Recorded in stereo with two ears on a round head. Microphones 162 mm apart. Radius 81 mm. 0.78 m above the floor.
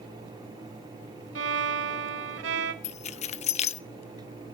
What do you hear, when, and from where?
1.4 s a violin: 70° right (ahead or behind), 1.1 m
2.8 s keys jangling: 40° left (ahead or behind), 0.6 m